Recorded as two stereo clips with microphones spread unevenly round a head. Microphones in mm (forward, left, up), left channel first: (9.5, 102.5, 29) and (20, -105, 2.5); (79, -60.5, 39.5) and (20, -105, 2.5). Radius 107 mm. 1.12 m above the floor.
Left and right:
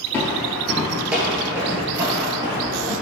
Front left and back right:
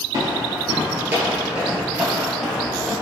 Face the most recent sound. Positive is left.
turn(degrees=-20)